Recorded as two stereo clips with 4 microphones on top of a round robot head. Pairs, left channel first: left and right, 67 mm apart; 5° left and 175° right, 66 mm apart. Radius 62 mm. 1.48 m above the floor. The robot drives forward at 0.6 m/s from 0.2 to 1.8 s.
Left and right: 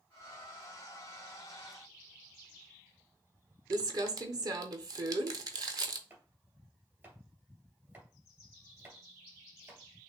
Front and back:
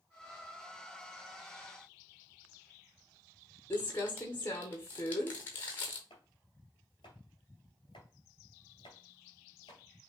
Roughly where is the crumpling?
Ahead right.